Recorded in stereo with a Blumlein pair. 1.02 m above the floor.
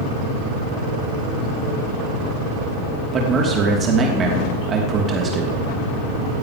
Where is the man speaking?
20° right, 2.5 m.